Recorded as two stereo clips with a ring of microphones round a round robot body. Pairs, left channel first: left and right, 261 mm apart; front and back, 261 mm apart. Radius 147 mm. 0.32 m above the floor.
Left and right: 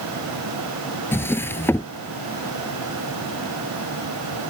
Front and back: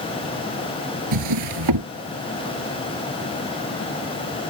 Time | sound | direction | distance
1.1 | a drawer | 170° left | ?